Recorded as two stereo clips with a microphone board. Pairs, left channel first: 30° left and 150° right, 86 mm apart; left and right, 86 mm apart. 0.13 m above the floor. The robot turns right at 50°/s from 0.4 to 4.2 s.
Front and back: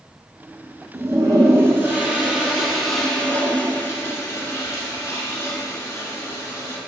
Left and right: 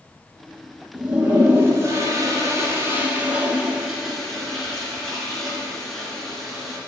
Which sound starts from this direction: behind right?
A toilet flushing, at 0.9 s.